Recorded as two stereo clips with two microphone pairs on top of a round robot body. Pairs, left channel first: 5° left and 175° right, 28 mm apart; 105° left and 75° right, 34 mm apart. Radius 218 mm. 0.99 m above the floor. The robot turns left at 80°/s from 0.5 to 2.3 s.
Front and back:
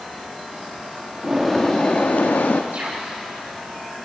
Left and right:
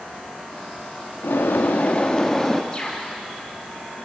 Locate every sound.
1.2 s a bird: 110° left, 1.0 m; by 2.6 s 25° left, 1.0 m
2.7 s a bird: 175° left, 7 m